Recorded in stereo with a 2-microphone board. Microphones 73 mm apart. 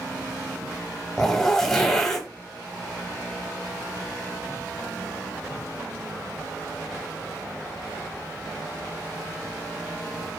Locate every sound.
1.2 s a zipper: 5° left (ahead or behind), 0.7 m